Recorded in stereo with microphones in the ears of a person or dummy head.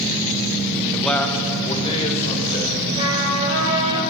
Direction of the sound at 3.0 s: 40° right (ahead or behind).